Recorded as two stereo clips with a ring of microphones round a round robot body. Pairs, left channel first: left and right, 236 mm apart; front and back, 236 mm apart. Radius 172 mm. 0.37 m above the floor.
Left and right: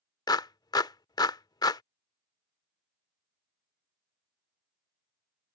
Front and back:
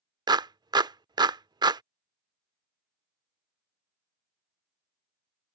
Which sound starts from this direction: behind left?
A clap, at 0.3 s.